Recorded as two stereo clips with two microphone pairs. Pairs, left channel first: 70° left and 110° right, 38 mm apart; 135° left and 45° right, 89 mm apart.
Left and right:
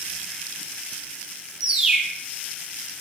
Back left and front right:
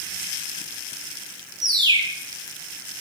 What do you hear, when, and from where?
1.6 s a bird: 35° right, 1.0 m